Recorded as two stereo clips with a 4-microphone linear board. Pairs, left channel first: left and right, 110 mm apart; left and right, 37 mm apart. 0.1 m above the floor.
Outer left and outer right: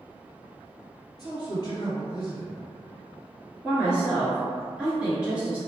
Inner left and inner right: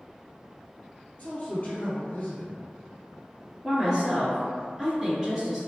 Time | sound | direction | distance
1.2 | a man speaking | 40° left (ahead or behind) | 1.5 m
3.6 | a woman speaking | 10° right (ahead or behind) | 1.6 m